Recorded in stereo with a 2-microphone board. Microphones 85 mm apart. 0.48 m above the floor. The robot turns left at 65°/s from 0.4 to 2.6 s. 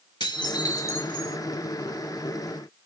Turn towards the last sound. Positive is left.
turn(degrees=-80)